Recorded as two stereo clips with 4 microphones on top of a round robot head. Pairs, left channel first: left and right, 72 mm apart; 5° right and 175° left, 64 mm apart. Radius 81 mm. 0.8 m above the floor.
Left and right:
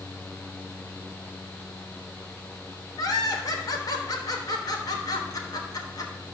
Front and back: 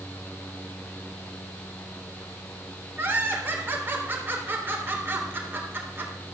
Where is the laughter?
120° left, 3.5 m.